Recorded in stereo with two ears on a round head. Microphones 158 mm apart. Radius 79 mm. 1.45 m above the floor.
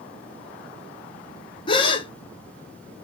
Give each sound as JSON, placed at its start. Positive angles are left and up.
{"t": 1.7, "sound": "a gasp", "side_deg": 25, "distance_m": 0.6}